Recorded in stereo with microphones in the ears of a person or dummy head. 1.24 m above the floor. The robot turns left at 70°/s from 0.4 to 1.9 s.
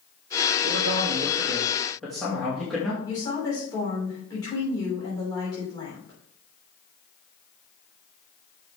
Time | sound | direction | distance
0.6 | a man speaking | 105° right | 2 m
3.0 | a woman speaking | 30° left (ahead or behind) | 3.5 m